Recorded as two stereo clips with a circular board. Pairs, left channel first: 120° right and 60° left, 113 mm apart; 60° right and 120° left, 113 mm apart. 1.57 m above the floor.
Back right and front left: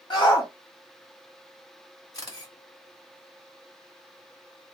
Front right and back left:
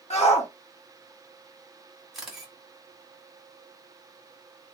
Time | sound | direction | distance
0.1 | a shout | 75° right | 1.2 m
2.1 | a camera shutter | 155° right | 1.2 m